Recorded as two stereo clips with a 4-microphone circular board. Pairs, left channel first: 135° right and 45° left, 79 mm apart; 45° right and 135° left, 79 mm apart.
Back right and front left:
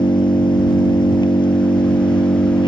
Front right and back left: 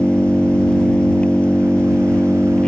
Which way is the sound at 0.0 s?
120° right.